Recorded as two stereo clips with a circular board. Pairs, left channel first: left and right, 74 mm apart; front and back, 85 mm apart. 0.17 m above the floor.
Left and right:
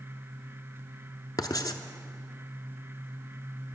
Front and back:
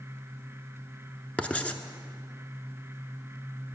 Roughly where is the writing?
Left.